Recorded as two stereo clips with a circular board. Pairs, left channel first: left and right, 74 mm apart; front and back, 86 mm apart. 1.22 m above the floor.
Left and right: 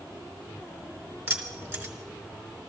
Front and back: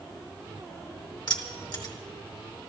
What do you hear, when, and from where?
1.3 s keys jangling: 25° right, 2 m